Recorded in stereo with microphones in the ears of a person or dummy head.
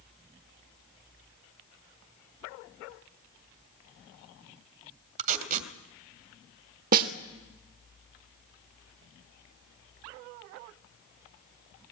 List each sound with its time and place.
5.2 s tape being pulled: 50° right (ahead or behind), 2 m
6.9 s a snare drum: 50° right (ahead or behind), 1.8 m